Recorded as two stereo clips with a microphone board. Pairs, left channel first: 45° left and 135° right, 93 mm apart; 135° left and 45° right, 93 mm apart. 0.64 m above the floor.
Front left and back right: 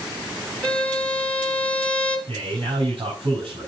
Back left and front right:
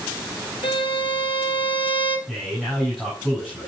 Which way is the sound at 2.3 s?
140° right.